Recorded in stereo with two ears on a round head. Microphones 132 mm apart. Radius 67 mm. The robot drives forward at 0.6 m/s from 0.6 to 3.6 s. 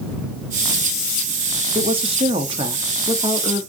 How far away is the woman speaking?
About 0.7 m.